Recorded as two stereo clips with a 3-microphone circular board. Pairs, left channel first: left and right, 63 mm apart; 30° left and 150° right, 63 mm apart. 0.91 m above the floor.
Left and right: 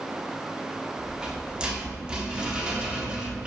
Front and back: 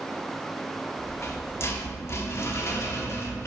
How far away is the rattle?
About 0.8 m.